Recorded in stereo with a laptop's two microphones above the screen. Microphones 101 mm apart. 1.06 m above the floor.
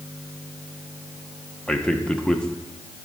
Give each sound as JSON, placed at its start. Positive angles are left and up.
{"t": 1.7, "sound": "a man speaking", "side_deg": 10, "distance_m": 0.9}